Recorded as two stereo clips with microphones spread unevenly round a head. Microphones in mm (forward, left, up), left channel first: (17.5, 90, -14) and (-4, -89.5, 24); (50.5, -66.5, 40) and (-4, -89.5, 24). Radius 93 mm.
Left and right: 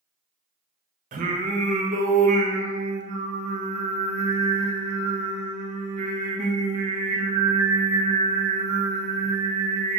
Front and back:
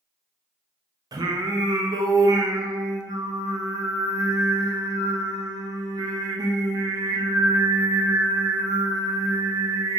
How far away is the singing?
About 0.6 m.